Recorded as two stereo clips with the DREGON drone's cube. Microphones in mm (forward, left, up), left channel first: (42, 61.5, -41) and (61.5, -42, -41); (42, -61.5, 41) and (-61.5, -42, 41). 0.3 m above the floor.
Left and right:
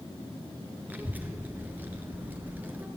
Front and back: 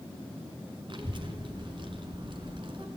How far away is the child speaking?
About 3 m.